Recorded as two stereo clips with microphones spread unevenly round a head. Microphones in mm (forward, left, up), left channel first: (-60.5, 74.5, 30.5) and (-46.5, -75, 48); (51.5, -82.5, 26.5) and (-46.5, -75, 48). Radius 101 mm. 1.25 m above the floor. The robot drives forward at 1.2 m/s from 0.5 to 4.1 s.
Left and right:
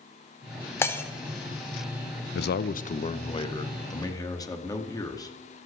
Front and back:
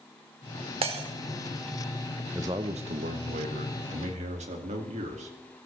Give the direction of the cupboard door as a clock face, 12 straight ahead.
I don't hear a cupboard door.